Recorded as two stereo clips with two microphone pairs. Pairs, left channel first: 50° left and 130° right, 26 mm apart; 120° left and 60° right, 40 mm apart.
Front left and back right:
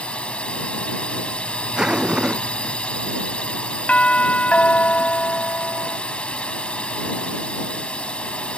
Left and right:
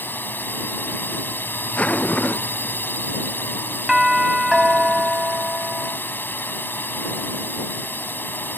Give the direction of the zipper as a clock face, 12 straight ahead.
6 o'clock.